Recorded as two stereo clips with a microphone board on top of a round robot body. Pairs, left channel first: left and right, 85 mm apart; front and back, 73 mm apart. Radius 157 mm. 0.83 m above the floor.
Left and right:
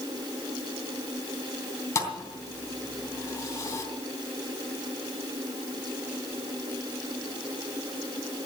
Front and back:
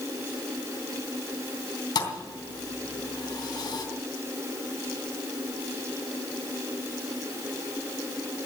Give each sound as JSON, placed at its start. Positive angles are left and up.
{"t": 1.9, "sound": "a thud", "azimuth_deg": 35, "distance_m": 3.0}